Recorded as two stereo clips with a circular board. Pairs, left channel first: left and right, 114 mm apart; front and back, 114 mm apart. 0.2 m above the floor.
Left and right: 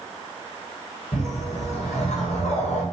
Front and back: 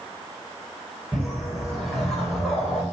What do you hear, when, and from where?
1.1 s a whoosh: 85° left, 8.5 m